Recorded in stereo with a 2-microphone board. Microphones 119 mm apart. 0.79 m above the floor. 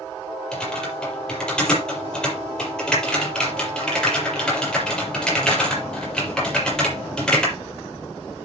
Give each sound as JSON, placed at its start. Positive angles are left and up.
{"t": 0.5, "sound": "typing on a keyboard", "side_deg": 5, "distance_m": 7.0}